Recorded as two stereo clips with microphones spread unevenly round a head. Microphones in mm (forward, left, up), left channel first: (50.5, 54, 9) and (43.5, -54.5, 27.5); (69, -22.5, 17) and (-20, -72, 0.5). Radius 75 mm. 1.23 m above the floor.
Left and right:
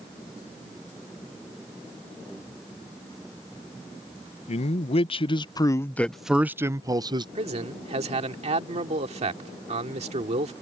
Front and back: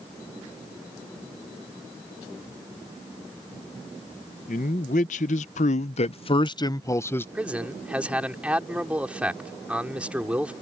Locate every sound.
4.5 s a man speaking: 65° left; by 7.2 s 45° right
7.3 s a man speaking: 70° right